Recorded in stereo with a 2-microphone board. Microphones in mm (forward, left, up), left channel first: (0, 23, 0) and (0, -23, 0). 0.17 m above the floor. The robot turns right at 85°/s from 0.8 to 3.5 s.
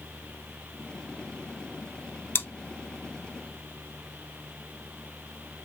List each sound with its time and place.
2.4 s chewing: 55° left (ahead or behind), 1.1 m; by 2.5 s 60° left (ahead or behind), 1.1 m